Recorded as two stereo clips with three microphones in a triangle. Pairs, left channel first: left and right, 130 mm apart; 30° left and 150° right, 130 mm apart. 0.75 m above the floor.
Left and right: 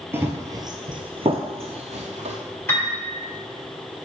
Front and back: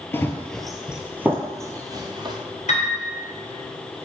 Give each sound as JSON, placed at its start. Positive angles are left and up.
{"t": 0.1, "sound": "running footsteps", "azimuth_deg": -30, "distance_m": 0.9}
{"t": 2.7, "sound": "a piano", "azimuth_deg": 20, "distance_m": 2.5}